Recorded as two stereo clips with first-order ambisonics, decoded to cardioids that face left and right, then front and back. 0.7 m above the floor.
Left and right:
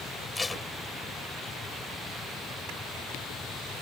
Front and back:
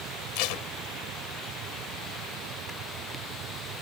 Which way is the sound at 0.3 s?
10° left.